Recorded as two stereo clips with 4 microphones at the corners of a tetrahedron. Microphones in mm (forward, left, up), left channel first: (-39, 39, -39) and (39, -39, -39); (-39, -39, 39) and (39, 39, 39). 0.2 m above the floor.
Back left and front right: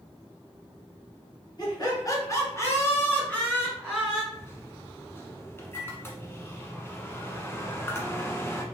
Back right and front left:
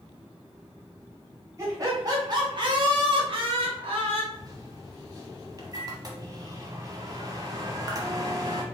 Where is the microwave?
80° left, 1.0 m.